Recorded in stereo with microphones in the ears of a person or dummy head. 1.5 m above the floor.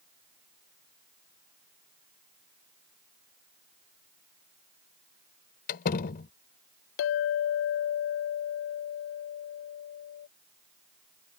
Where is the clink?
55° left (ahead or behind).